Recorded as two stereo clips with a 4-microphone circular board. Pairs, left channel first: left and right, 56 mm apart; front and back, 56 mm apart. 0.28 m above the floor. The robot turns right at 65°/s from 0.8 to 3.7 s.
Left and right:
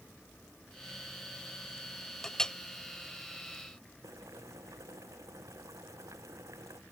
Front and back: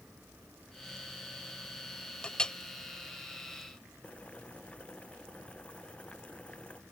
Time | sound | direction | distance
2.2 | a clink | 30° left | ?
4.0 | boiling | 70° right | ?